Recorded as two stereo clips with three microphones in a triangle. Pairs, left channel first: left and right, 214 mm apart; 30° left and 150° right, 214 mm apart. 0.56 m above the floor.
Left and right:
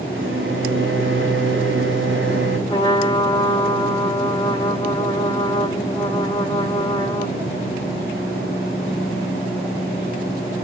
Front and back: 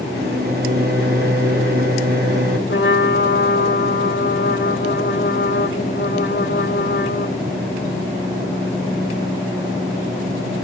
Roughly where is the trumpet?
Ahead left.